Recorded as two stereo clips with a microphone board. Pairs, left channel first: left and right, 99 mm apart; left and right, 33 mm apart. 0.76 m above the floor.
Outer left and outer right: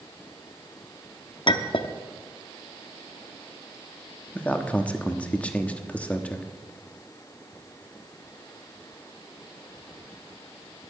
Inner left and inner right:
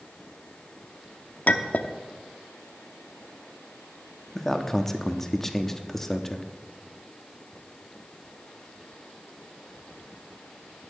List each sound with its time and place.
1.5 s a clink: 55° left (ahead or behind), 0.7 m
4.3 s a man speaking: 15° left (ahead or behind), 1.1 m